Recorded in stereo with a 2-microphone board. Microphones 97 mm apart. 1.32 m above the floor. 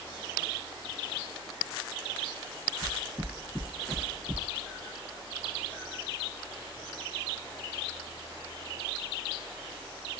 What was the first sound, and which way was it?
Footsteps, 20° right (ahead or behind).